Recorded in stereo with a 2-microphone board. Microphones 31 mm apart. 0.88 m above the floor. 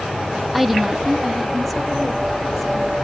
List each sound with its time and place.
0.5 s a woman speaking: 5° right (ahead or behind), 1.0 m; by 2.9 s centre (ahead or behind), 2.5 m